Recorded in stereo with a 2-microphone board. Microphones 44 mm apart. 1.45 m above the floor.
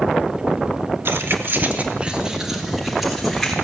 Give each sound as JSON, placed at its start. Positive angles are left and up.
{"t": 1.1, "sound": "keys jangling", "side_deg": -70, "distance_m": 1.3}